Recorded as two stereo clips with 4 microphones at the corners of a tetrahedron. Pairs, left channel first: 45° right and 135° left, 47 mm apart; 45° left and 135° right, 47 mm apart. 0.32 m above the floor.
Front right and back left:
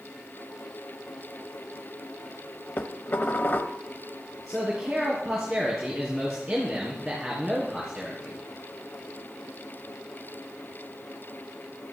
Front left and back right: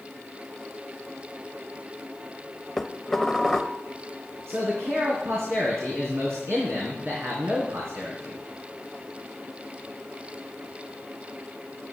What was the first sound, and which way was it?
Dishes clattering, 35° right.